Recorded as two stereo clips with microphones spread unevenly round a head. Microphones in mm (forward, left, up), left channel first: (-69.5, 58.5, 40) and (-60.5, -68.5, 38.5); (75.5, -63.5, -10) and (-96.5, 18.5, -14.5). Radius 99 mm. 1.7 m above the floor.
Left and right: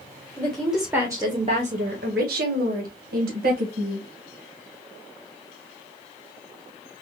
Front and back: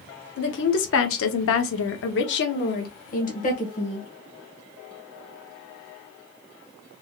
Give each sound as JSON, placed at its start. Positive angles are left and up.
{"t": 0.4, "sound": "a woman speaking", "azimuth_deg": 10, "distance_m": 1.2}